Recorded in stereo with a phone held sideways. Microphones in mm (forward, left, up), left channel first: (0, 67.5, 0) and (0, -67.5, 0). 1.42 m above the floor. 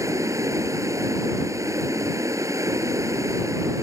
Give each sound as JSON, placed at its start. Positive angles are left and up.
{"t": 0.0, "sound": "running water", "side_deg": -25}